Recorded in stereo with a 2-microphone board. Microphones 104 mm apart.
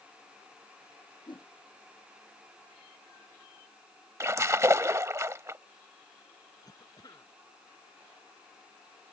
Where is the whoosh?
50° left (ahead or behind).